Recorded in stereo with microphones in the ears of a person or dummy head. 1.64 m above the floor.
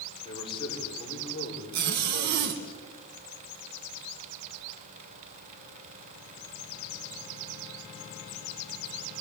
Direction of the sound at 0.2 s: 25° left (ahead or behind).